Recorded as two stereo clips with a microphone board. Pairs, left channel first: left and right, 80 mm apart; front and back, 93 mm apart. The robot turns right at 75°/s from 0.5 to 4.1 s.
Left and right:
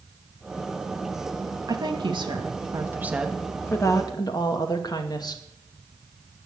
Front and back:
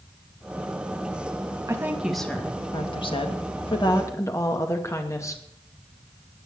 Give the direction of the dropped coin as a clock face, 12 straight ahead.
No dropped coin in this recording.